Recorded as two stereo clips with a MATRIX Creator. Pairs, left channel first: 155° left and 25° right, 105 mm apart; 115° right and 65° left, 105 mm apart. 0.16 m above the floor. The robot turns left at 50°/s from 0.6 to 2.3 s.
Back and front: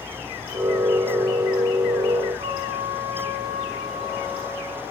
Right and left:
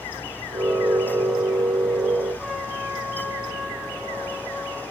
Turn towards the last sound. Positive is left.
turn(degrees=-20)